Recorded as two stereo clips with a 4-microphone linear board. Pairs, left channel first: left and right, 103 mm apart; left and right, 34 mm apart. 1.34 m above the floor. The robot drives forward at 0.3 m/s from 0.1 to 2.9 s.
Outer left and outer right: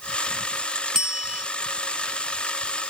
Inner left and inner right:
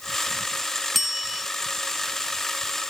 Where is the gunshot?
I don't hear a gunshot.